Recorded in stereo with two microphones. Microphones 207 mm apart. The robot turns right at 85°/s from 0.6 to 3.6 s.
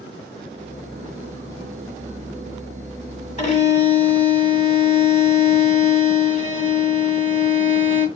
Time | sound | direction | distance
3.4 | a violin | 35° left (ahead or behind) | 1.5 m